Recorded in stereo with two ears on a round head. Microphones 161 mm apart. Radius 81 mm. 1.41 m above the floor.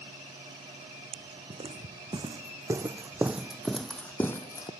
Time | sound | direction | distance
1.1 | footsteps | 30° right (ahead or behind) | ?